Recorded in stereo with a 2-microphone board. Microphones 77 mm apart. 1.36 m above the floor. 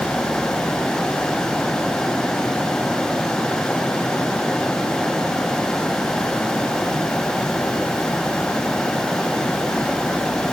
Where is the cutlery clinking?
I don't hear cutlery clinking.